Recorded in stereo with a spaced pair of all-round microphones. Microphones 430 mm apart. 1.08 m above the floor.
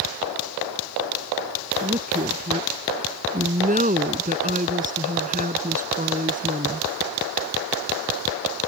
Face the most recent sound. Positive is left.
turn(degrees=-20)  # may be behind; listen again after turning